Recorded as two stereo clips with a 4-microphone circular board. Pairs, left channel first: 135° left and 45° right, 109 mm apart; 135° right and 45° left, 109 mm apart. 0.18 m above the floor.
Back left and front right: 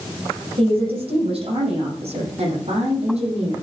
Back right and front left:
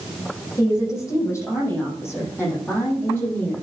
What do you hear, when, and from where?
0.6 s a woman speaking: 75° right, 7.5 m; by 3.6 s 60° right, 8 m